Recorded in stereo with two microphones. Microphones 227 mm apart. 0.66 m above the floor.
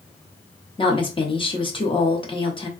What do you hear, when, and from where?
0.8 s a woman speaking: 20° left (ahead or behind), 0.8 m